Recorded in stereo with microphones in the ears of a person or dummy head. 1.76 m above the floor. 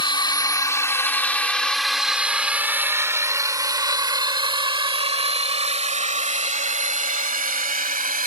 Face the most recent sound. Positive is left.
turn(degrees=-40)  # may be behind; listen again after turning